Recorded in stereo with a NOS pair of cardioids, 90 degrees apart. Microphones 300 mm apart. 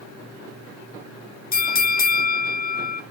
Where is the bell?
30° left, 0.9 m.